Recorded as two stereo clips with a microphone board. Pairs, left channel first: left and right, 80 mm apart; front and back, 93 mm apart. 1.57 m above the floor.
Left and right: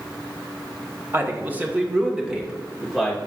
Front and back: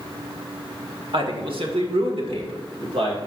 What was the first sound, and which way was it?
A man speaking, 150° right.